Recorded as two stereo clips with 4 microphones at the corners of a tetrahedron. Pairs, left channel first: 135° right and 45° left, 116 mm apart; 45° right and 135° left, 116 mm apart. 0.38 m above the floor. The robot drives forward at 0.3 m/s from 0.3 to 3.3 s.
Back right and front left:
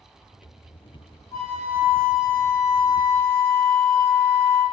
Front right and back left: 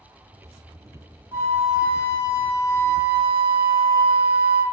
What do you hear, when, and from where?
1.3 s a flute: 170° right, 1.6 m; by 4.6 s 175° right, 2 m